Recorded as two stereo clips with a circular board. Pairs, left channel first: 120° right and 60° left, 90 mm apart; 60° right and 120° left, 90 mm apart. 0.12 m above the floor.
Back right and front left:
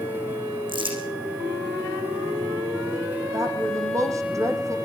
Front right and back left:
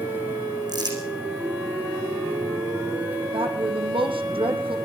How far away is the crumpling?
About 8 m.